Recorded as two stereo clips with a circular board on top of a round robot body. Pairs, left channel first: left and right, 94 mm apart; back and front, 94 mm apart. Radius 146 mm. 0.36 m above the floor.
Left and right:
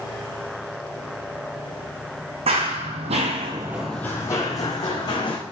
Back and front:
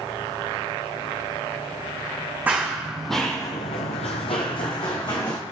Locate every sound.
2.5 s running footsteps: 75° right, 1.3 m; by 5.4 s 135° left, 1.9 m